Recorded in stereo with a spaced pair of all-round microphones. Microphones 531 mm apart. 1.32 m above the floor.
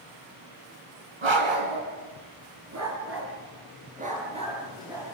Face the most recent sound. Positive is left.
turn(degrees=-5)  # may be behind; listen again after turning